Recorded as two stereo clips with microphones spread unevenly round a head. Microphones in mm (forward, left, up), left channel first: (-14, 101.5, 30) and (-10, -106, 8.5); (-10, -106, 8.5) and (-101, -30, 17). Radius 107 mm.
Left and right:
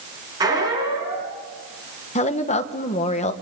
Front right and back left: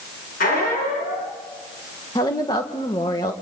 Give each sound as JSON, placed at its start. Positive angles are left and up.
{"t": 0.4, "sound": "a squeak", "azimuth_deg": -15, "distance_m": 5.5}
{"t": 2.1, "sound": "a woman speaking", "azimuth_deg": 30, "distance_m": 1.6}